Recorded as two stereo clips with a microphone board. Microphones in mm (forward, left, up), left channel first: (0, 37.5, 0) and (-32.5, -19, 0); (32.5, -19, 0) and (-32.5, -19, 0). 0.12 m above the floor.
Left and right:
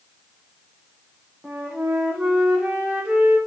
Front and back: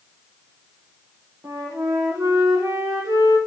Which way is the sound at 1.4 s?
170° left.